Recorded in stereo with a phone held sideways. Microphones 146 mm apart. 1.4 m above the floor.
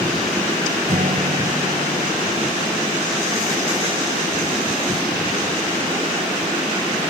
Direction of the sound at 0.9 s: 65° right (ahead or behind).